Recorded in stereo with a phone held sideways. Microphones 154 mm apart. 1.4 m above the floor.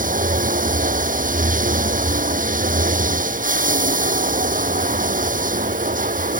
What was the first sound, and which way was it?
Running water, 60° right (ahead or behind).